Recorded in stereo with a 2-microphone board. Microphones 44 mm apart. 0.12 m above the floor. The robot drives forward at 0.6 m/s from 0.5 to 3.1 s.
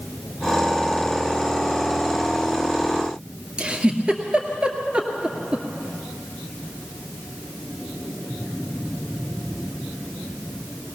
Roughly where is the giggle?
Right.